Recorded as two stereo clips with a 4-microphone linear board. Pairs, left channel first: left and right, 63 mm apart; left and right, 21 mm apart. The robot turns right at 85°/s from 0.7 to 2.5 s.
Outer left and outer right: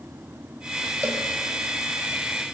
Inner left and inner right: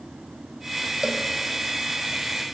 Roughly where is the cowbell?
Right.